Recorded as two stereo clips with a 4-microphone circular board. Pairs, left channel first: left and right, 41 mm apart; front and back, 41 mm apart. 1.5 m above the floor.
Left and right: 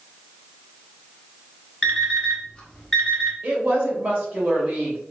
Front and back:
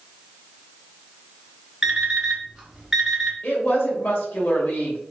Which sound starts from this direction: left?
An alarm clock, at 1.8 s.